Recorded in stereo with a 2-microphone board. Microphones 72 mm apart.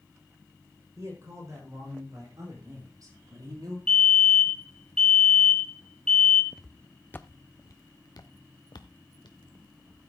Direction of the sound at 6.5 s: 5° right (ahead or behind).